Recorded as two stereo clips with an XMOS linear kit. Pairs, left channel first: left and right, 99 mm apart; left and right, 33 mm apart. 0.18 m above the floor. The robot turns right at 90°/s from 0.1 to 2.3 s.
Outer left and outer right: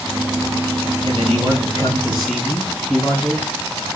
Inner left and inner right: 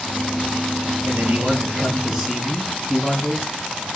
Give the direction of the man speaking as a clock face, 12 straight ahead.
3 o'clock.